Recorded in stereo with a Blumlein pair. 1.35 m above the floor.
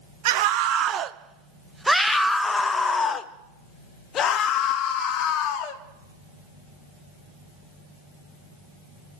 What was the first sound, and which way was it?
A scream, 50° right.